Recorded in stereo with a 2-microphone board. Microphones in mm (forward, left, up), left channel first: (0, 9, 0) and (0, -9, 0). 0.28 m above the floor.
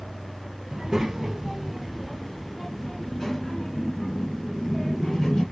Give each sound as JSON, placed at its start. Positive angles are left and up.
{"t": 0.7, "sound": "a child speaking", "side_deg": -30, "distance_m": 1.1}